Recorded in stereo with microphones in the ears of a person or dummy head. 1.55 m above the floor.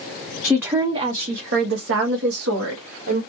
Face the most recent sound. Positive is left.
turn(degrees=-85)